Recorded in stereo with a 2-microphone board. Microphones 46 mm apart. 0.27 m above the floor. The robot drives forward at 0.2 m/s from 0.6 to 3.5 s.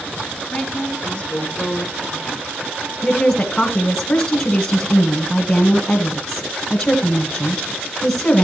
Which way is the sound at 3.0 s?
20° left (ahead or behind).